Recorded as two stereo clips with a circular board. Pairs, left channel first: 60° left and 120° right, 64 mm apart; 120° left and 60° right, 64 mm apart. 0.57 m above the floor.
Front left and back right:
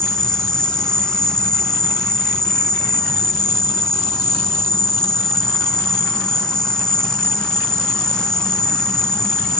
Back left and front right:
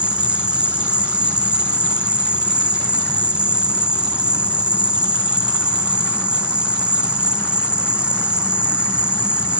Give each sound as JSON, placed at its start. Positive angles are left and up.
{"t": 0.0, "sound": "an insect", "azimuth_deg": -5, "distance_m": 1.2}